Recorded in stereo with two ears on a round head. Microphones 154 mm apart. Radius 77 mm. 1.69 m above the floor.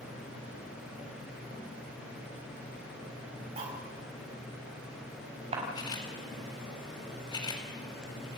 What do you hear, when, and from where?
3.6 s cutlery clinking: 35° right (ahead or behind), 5.5 m
5.8 s a camera shutter: 25° left (ahead or behind), 4.5 m